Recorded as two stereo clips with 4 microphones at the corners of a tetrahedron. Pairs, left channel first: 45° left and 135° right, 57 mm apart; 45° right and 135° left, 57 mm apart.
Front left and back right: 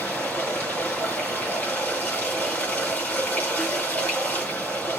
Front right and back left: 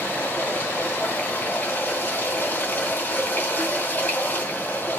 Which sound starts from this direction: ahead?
Running water, at 0.0 s.